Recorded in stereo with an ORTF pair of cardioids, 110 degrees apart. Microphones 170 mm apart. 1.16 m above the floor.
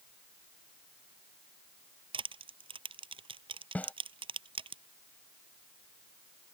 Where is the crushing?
30° right.